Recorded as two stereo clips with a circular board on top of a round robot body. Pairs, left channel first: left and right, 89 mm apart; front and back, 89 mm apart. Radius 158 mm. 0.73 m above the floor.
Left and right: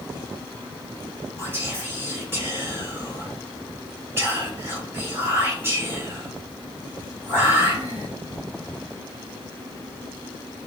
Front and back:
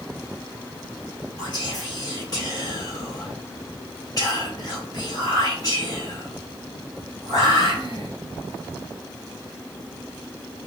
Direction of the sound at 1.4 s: 30° right.